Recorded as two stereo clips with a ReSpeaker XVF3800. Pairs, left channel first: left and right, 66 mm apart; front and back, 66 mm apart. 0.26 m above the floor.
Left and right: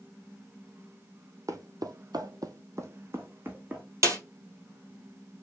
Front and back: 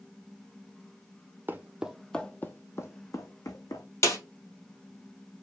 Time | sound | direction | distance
1.5 | footsteps | 120° right | 0.7 m
4.0 | a snare drum | 45° right | 2.5 m